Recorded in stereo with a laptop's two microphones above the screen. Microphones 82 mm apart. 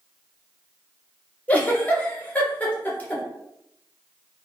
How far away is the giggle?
About 0.5 m.